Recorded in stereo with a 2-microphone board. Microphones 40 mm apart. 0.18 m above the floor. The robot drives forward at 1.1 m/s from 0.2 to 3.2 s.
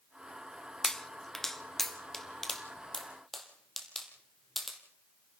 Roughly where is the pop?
Centre.